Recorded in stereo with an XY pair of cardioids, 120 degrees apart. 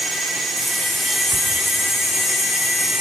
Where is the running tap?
25° left, 3 m.